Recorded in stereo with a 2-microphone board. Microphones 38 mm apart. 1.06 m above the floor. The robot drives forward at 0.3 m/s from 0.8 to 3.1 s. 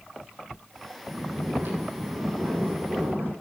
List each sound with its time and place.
1.1 s snoring: 80° right, 7 m; by 3.3 s 75° right (ahead or behind), 7 m